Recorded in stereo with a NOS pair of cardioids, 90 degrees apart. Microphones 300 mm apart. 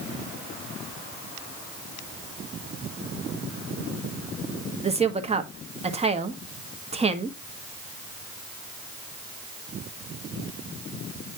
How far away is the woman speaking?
About 1.4 m.